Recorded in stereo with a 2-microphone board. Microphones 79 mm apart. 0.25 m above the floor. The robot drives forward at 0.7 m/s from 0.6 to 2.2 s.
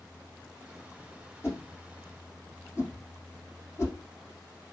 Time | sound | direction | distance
1.4 | a whoosh | 30° left (ahead or behind) | 5 m